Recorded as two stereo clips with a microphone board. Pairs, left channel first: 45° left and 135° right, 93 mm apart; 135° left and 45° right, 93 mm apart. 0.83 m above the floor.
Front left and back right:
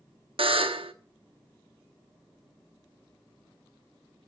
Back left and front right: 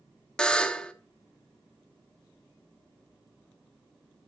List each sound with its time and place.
0.4 s a buzzer: 145° right, 0.8 m